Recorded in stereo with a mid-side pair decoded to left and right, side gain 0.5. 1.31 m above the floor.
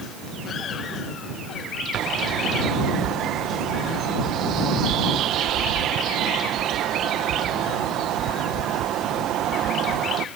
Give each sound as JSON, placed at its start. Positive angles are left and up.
{"t": 1.9, "sound": "a bird", "azimuth_deg": -70}